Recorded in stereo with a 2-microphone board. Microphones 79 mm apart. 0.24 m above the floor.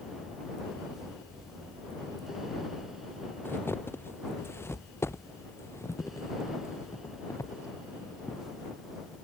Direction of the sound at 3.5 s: 30° left (ahead or behind).